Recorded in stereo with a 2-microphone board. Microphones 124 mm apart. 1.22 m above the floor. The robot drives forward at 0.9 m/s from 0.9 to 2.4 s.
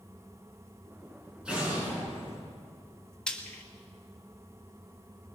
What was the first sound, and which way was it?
An explosion, 10° right (ahead or behind).